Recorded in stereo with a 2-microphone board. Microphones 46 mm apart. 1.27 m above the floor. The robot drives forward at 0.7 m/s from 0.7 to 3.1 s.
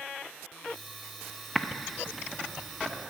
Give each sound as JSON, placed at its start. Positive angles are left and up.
{"t": 1.6, "sound": "typing on a keyboard", "side_deg": 0, "distance_m": 0.6}